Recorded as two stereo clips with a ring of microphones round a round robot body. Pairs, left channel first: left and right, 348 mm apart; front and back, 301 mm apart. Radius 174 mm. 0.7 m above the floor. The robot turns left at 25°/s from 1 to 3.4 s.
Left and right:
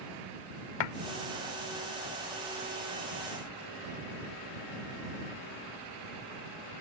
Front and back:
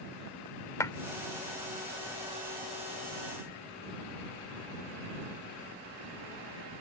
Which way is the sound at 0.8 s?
80° left.